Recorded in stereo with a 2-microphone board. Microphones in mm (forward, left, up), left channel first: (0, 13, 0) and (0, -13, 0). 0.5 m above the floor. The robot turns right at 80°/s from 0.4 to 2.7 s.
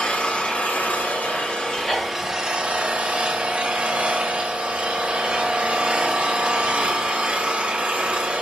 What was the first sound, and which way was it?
An engine running, 45° left.